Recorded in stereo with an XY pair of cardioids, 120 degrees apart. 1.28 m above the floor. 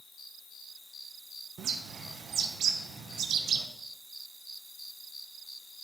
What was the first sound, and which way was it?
A bird, 55° right.